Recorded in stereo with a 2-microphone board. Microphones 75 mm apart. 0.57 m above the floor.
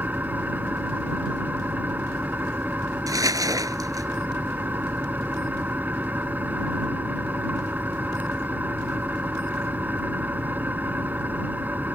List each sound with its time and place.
0.0 s an engine running: 20° right (ahead or behind)
3.1 s crumpling: 50° right (ahead or behind)